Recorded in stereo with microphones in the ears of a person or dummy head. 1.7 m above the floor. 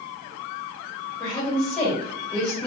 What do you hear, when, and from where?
1.2 s a woman speaking: 5° left (ahead or behind), 1.9 m